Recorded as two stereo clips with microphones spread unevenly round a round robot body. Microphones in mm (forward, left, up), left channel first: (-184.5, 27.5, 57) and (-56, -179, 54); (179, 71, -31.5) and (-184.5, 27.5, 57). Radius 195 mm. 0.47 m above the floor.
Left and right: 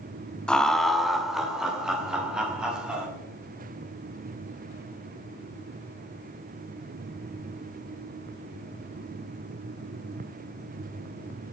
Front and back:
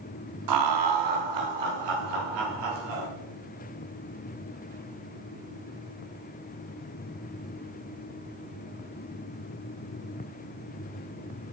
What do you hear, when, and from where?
0.5 s laughter: 150° right, 1.0 m; by 3.1 s 145° right, 4 m